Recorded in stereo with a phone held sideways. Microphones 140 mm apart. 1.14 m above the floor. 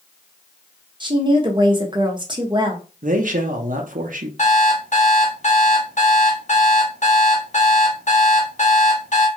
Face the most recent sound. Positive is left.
turn(degrees=60)  # may be behind; listen again after turning